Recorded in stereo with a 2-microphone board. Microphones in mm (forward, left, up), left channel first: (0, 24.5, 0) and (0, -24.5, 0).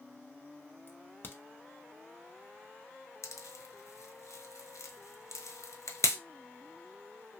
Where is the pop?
80° left, 0.7 m.